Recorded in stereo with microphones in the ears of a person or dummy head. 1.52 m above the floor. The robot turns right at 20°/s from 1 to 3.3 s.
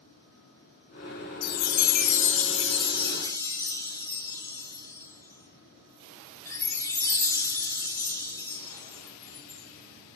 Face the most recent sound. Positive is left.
turn(degrees=20)  # may be behind; listen again after turning